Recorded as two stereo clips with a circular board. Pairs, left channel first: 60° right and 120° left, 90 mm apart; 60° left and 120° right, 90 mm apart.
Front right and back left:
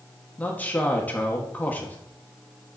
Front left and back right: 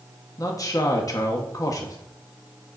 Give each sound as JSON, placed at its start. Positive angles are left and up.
{"t": 0.4, "sound": "a man speaking", "azimuth_deg": 10, "distance_m": 1.4}